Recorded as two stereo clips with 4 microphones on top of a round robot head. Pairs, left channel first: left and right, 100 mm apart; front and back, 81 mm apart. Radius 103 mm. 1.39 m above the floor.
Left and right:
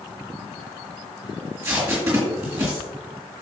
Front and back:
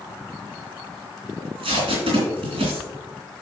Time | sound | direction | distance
1.4 | tape being pulled | 175° right | 2.5 m